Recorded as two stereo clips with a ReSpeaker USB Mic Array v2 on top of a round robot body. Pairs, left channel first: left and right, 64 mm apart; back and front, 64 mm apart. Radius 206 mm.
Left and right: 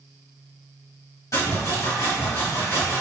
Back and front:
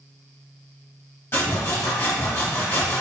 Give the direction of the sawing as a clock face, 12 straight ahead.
8 o'clock.